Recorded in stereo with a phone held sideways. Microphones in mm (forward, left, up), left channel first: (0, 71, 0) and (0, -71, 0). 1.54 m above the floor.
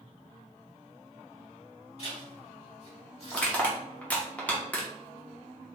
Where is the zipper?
50° left (ahead or behind), 2.0 m.